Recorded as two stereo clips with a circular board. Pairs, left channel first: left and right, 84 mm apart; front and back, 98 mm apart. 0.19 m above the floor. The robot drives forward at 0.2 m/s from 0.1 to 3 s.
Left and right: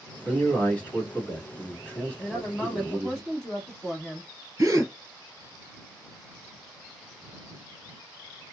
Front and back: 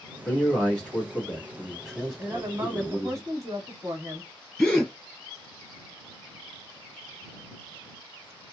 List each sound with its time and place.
0.2 s a man speaking: 50° left, 1.4 m; by 3.2 s 125° left, 1.3 m
2.2 s a woman speaking: 160° left, 1.1 m; by 4.3 s 165° left, 1.1 m
4.6 s a gasp: 80° right, 1.7 m